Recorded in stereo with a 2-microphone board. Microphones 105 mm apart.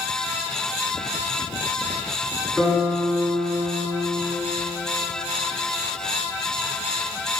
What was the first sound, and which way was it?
A guitar, 5° right (ahead or behind).